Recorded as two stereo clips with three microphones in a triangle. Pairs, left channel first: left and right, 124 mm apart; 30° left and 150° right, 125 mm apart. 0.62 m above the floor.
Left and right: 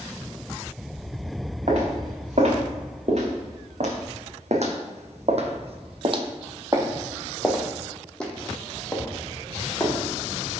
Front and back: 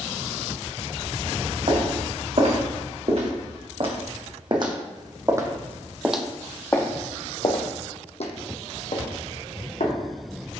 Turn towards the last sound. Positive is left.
turn(degrees=25)